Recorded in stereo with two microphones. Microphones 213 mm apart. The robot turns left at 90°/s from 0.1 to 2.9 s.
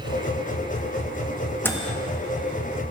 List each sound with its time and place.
1.6 s a microwave: 10° left (ahead or behind), 1.4 m; by 2.0 s 35° left (ahead or behind), 1.4 m